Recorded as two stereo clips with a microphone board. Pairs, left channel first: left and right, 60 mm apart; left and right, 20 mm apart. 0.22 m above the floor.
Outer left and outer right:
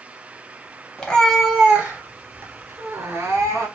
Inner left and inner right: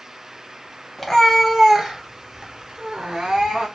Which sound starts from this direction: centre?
A cat meowing, at 1.0 s.